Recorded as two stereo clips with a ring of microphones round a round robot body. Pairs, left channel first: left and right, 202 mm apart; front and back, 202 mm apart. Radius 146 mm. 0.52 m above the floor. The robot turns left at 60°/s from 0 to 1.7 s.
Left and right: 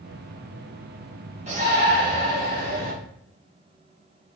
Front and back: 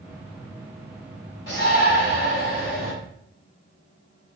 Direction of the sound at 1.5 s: 40° right.